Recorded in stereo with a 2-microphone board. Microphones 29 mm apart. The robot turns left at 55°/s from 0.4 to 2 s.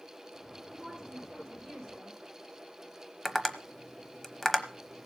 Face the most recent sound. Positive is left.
turn(degrees=10)  # may be behind; listen again after turning